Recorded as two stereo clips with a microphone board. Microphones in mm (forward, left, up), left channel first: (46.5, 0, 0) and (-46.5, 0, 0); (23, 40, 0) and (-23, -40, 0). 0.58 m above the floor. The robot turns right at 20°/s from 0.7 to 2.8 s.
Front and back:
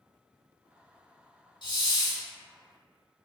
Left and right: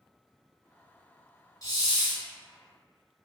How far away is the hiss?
About 0.8 m.